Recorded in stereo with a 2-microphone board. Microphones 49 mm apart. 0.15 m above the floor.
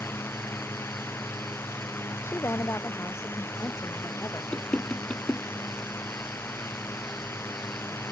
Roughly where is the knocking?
Left.